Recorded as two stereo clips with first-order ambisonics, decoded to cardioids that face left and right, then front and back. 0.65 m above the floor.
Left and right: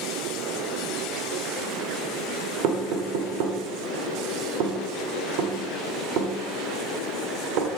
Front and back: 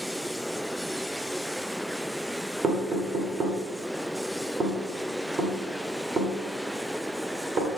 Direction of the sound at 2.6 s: 115° right.